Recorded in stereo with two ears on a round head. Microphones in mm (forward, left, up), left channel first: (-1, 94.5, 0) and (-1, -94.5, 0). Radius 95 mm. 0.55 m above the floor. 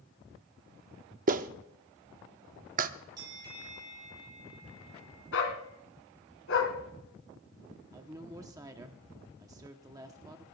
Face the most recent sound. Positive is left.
turn(degrees=-15)  # may be behind; listen again after turning